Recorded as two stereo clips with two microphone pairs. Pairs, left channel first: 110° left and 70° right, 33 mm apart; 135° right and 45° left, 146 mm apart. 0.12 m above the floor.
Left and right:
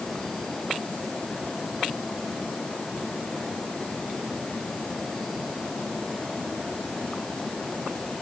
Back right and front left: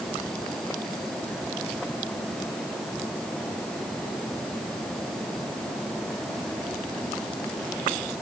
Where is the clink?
No clink in this recording.